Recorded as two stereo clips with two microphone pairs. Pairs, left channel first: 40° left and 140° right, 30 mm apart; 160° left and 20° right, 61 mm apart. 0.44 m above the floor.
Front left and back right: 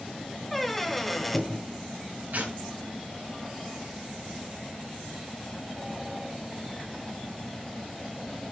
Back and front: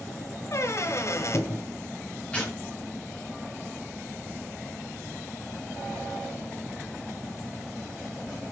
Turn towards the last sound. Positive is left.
turn(degrees=-135)